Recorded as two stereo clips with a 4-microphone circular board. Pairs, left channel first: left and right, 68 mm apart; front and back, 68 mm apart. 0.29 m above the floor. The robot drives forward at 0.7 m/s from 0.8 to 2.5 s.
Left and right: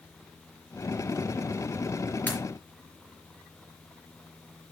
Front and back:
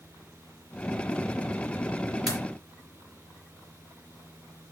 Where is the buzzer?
I don't hear a buzzer.